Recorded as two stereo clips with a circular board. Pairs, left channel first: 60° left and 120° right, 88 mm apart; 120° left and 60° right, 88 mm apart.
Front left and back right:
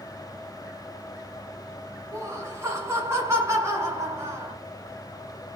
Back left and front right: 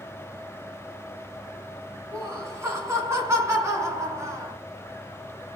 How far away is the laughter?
About 1.2 m.